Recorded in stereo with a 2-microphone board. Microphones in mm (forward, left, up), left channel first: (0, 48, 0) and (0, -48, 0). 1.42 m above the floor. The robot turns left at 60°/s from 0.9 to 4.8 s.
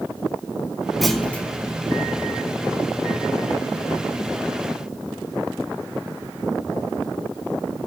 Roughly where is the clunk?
Centre.